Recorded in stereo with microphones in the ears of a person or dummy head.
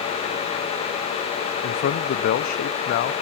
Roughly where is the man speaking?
Left.